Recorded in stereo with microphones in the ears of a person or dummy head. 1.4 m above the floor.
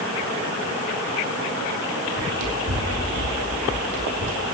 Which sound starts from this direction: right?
Running footsteps, at 2.2 s.